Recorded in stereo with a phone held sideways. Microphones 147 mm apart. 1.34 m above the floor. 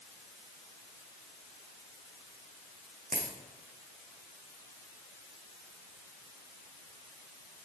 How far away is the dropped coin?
About 4 m.